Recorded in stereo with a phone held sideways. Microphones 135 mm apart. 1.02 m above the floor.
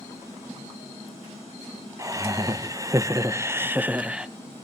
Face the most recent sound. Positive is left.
turn(degrees=-5)  # may be behind; listen again after turning